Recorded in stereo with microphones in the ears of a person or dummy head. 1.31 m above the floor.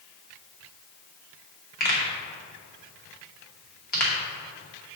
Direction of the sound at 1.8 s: 45° left (ahead or behind).